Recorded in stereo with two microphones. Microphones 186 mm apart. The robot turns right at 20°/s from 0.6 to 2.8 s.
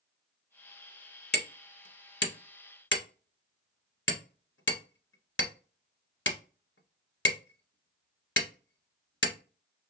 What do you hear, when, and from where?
1.3 s hammering: 65° left (ahead or behind), 0.9 m; by 9.3 s 90° left, 0.9 m